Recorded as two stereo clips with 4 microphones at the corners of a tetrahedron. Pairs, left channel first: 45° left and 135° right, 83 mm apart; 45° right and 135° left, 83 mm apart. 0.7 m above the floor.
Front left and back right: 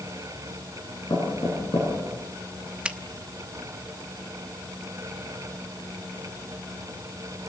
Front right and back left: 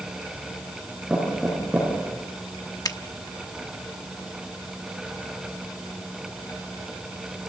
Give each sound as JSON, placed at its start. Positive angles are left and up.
{"t": 1.1, "sound": "knocking", "azimuth_deg": 45, "distance_m": 9.0}
{"t": 2.9, "sound": "a finger snap", "azimuth_deg": -60, "distance_m": 0.9}